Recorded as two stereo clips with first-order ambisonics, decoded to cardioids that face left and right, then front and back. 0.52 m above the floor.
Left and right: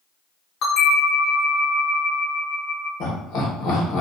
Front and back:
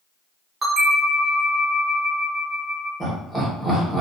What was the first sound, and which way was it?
A bell, 110° left.